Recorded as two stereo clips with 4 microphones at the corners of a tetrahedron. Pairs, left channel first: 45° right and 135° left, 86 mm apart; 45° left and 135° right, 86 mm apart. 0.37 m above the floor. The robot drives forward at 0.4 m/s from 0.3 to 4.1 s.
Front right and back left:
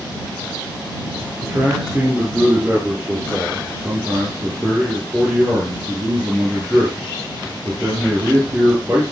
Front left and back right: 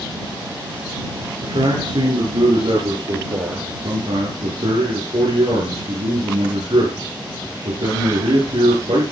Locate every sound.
1.4 s a man speaking: 150° right, 5 m; by 9.1 s 155° right, 6 m